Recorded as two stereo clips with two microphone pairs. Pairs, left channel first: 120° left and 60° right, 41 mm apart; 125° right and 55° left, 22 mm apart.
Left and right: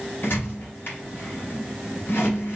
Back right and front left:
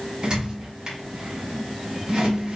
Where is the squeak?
110° left, 2.0 m.